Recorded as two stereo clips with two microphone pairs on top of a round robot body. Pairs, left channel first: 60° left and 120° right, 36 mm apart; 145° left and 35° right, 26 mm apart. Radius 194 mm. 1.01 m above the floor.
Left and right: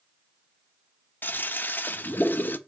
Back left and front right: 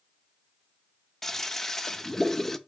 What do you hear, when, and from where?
1.2 s a toilet flushing: 55° left, 0.6 m